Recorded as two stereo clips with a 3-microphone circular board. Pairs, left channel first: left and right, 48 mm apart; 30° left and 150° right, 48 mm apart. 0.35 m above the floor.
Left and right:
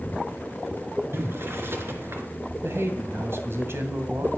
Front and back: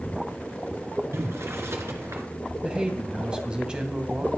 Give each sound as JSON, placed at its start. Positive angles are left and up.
{"t": 1.1, "sound": "boiling", "azimuth_deg": -120, "distance_m": 2.5}
{"t": 2.6, "sound": "a man speaking", "azimuth_deg": -80, "distance_m": 2.5}